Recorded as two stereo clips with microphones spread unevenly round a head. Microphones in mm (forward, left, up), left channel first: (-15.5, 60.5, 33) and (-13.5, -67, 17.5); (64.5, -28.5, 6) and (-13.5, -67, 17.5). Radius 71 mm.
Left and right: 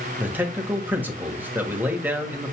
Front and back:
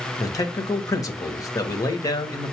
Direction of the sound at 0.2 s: 15° right.